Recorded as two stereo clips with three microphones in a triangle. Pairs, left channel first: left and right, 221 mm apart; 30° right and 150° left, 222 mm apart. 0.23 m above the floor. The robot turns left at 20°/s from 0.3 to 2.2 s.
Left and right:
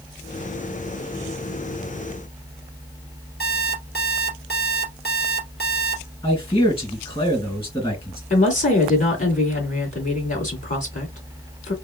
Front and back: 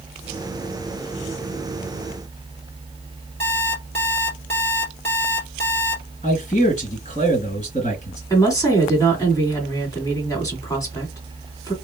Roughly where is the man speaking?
Ahead left.